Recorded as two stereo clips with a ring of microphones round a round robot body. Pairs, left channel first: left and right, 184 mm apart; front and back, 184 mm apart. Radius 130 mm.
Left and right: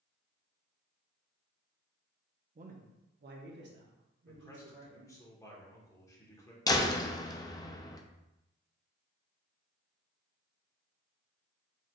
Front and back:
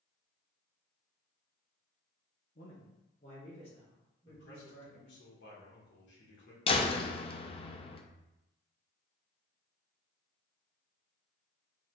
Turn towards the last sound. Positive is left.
turn(degrees=35)